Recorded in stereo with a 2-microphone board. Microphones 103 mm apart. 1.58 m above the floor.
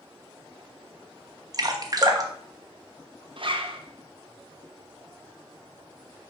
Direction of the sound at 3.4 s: 55° right (ahead or behind).